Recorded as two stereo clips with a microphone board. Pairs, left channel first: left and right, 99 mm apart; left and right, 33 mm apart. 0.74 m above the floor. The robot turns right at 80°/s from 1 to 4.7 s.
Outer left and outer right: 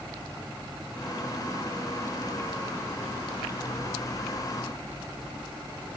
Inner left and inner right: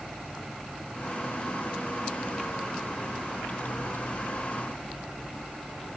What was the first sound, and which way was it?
Only background noise.